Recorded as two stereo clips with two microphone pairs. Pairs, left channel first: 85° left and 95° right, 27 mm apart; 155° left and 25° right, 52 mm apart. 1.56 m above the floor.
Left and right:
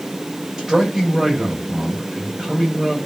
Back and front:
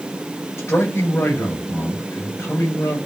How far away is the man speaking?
About 5.5 m.